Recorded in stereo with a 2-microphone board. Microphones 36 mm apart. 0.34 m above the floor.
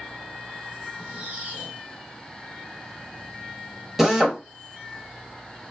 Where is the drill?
10° right (ahead or behind), 0.8 m.